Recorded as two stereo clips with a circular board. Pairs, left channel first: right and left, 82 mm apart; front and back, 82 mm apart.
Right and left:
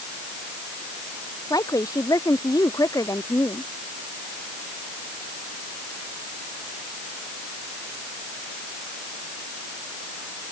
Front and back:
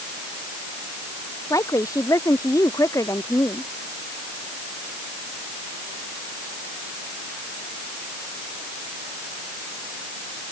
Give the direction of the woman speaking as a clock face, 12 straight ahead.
2 o'clock.